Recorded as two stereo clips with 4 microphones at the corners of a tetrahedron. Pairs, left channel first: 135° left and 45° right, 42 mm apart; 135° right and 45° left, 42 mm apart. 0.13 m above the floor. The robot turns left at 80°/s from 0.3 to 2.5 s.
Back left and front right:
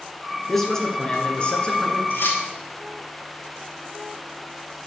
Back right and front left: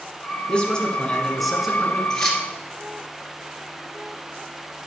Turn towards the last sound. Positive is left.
turn(degrees=120)